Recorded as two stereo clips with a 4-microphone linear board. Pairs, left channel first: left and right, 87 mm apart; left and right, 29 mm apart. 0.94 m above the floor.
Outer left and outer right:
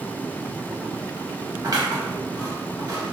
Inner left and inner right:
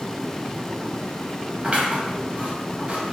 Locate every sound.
1.6 s scissors: 45° right (ahead or behind), 0.9 m